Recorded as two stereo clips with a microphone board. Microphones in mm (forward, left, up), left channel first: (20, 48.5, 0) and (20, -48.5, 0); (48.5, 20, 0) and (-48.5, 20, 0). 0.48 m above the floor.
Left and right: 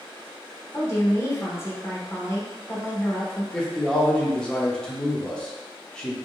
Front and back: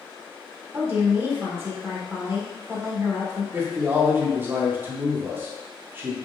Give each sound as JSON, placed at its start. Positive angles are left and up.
{"t": 0.7, "sound": "a woman speaking", "azimuth_deg": 130, "distance_m": 1.2}
{"t": 3.5, "sound": "a man speaking", "azimuth_deg": 155, "distance_m": 0.8}